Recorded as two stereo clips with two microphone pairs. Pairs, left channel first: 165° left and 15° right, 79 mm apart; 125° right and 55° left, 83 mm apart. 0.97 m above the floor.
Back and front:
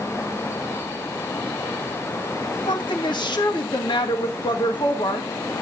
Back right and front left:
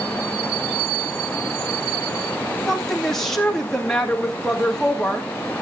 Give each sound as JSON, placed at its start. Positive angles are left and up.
{"t": 2.7, "sound": "a woman speaking", "azimuth_deg": 145, "distance_m": 2.0}